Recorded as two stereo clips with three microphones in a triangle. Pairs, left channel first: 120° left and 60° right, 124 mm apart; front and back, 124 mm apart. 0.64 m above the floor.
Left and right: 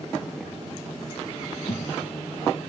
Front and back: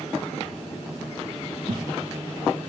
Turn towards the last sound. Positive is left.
turn(degrees=150)